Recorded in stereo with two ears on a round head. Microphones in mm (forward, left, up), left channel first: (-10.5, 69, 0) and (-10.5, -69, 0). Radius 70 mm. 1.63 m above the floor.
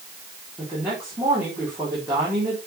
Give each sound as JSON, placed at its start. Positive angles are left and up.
{"t": 0.6, "sound": "a woman speaking", "side_deg": -15, "distance_m": 4.0}